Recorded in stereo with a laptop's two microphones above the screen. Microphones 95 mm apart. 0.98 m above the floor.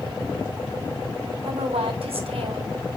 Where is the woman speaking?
85° right, 2.5 m.